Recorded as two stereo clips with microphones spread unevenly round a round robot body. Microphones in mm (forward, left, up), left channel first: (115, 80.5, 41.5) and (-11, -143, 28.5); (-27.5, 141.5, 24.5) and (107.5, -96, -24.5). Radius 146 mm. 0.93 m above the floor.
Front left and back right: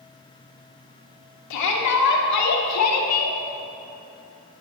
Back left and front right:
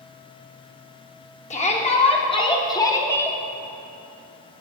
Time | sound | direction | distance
1.5 | a shout | 50° left | 3 m